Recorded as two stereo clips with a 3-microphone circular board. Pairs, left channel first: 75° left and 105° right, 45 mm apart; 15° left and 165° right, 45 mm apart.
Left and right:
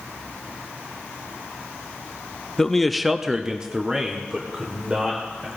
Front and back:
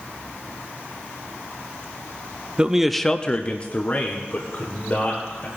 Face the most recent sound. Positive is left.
turn(degrees=-35)